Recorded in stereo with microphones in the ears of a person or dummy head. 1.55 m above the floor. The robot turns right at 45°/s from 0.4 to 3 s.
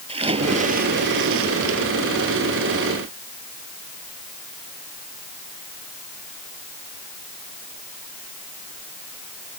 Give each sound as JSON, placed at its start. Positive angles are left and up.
{"t": 0.1, "sound": "a splash", "azimuth_deg": -155}